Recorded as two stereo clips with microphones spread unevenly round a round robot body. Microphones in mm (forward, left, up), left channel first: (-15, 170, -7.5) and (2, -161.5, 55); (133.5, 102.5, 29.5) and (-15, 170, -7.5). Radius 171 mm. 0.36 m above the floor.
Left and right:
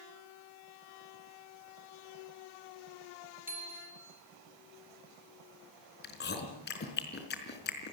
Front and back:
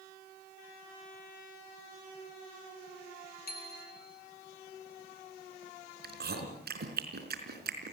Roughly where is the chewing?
Behind left.